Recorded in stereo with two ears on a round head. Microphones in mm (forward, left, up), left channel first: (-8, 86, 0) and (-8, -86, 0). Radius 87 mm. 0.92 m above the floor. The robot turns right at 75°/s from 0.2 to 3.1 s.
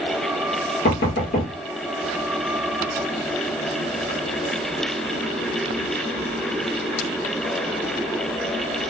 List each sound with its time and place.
0.8 s knocking: 55° left (ahead or behind), 1.0 m; by 1.5 s 40° left (ahead or behind), 1.0 m